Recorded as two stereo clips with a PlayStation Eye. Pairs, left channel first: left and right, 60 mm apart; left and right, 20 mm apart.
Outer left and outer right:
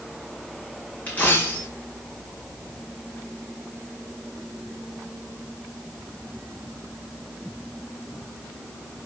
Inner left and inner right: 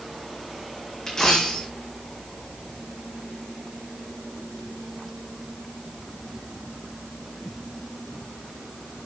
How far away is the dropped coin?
About 3.5 m.